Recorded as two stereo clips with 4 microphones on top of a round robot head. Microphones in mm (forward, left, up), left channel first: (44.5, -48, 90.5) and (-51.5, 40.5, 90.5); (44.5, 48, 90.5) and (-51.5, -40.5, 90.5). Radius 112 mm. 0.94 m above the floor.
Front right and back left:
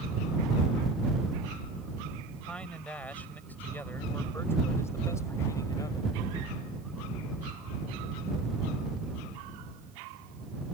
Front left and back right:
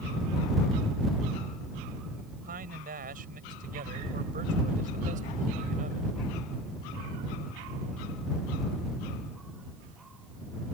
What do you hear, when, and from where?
2.4 s a man speaking: 125° right; by 6.2 s 105° right